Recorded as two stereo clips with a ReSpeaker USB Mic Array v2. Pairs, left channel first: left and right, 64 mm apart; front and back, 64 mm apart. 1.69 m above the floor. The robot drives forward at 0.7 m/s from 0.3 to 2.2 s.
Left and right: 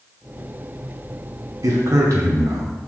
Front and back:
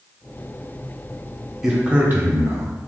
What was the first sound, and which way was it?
A man speaking, 95° right.